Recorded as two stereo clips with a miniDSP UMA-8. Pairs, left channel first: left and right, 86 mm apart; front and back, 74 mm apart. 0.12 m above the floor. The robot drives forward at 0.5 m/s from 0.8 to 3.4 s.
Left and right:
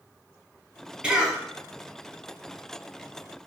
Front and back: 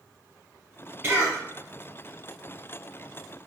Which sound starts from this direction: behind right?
A cough, at 1.0 s.